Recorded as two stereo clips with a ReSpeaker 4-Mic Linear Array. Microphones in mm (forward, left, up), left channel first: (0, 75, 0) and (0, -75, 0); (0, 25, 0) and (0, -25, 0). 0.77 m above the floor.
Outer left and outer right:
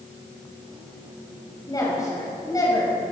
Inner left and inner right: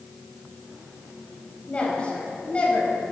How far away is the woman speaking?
About 5.5 m.